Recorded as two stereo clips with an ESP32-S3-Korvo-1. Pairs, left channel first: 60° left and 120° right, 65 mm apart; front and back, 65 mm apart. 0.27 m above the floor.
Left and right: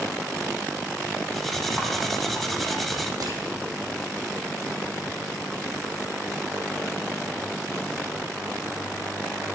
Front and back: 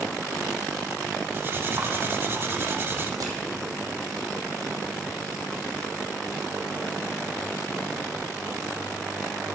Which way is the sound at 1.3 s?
145° left.